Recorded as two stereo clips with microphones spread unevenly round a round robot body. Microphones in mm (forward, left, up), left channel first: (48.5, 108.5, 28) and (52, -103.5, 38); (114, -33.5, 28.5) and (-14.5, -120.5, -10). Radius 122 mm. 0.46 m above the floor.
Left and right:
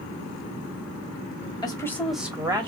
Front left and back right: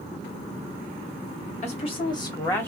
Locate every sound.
1.6 s a woman speaking: 55° left, 1.2 m; by 2.7 s 65° right, 1.2 m